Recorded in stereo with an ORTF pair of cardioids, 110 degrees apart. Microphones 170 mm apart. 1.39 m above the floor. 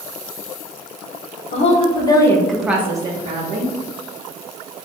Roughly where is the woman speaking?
Ahead left.